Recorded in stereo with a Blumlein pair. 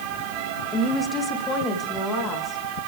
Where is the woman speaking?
15° left, 2 m; by 2.6 s 20° left, 4 m.